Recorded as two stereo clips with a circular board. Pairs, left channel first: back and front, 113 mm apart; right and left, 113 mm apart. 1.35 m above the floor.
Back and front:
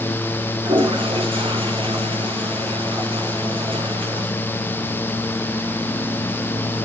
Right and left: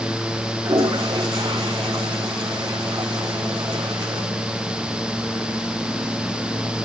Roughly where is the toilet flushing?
Ahead left.